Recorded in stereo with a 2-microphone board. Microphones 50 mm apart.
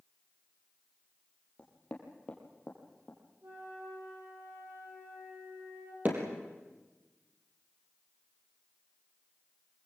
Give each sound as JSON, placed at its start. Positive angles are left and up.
{"t": 1.6, "sound": "knocking", "side_deg": 20, "distance_m": 4.5}
{"t": 3.4, "sound": "a flute", "side_deg": -55, "distance_m": 7.0}
{"t": 6.0, "sound": "hammering", "side_deg": -35, "distance_m": 5.0}